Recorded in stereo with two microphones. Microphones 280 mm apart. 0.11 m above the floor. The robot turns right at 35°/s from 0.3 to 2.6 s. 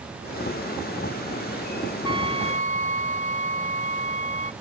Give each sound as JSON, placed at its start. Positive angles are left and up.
{"t": 2.0, "sound": "a trumpet", "side_deg": 65}